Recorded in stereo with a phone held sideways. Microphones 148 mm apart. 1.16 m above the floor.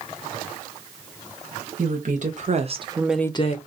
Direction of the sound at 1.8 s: 65° right (ahead or behind).